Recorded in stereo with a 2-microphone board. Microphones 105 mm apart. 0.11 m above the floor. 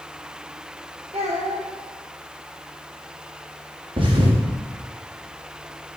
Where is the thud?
50° right (ahead or behind), 3.5 m.